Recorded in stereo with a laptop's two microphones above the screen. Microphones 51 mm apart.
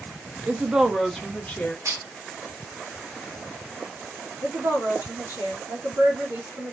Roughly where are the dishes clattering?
Right.